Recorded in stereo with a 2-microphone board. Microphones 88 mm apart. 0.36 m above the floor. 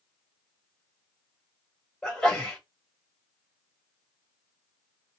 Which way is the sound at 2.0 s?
5° left (ahead or behind).